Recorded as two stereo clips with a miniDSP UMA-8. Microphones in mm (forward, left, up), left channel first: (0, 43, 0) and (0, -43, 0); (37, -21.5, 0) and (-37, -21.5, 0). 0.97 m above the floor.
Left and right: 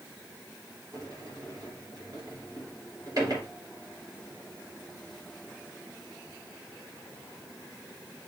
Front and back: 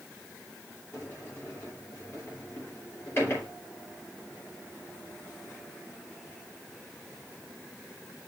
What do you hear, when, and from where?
0.9 s a sliding door: 50° right, 3 m